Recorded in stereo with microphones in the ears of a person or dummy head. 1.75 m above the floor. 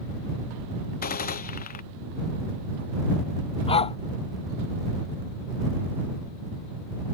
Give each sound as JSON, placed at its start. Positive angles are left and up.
{"t": 1.0, "sound": "a gunshot", "side_deg": 50}
{"t": 3.7, "sound": "a dog barking", "side_deg": 35}